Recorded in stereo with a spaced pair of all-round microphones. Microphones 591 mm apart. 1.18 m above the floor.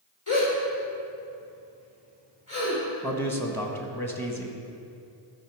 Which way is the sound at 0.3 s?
30° left (ahead or behind).